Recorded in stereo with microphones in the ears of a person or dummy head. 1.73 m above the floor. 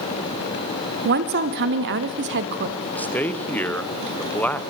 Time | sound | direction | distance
1.1 | a woman speaking | 55° right (ahead or behind) | 1.1 m
2.8 | a man speaking | 10° left (ahead or behind) | 1.0 m